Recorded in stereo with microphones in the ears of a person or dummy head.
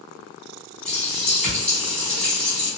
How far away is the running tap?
About 1.3 m.